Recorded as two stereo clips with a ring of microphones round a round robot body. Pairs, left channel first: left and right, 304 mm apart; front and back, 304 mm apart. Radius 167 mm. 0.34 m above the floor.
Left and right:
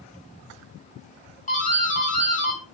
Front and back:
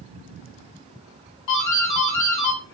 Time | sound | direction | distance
1.5 | a doorbell | 25° left | 4 m